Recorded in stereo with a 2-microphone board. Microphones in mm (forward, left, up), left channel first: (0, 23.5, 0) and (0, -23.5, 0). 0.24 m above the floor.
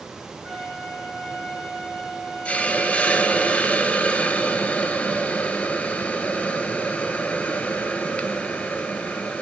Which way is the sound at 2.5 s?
25° left (ahead or behind).